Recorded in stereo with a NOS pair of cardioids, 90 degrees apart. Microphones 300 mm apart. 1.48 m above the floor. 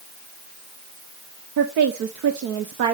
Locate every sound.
1.6 s a woman speaking: 65° right, 0.9 m